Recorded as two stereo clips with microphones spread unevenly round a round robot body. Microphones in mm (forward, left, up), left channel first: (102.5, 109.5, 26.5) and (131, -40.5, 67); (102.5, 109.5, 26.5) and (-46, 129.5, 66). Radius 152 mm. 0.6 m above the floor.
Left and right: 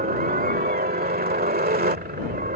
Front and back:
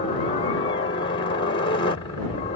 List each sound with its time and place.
0.0 s a helicopter: 55° right